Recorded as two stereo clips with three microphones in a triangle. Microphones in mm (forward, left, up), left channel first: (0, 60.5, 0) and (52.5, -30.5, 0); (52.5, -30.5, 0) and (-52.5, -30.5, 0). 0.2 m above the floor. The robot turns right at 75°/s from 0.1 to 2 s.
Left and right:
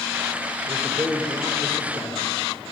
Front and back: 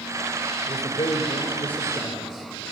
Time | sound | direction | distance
0.7 | a man speaking | 5° right | 3.5 m